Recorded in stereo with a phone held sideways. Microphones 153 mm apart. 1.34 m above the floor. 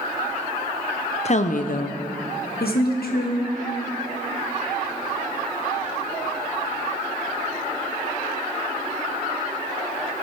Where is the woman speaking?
45° left (ahead or behind), 0.5 m; by 3.5 s 80° left, 1.4 m.